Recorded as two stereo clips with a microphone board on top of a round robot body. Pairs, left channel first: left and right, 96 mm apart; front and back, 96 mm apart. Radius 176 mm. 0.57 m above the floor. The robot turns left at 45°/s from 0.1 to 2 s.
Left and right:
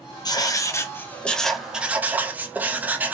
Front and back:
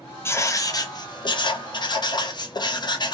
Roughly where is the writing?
Ahead left.